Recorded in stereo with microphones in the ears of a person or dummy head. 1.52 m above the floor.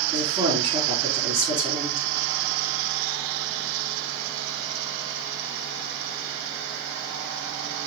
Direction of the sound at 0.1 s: 45° right (ahead or behind).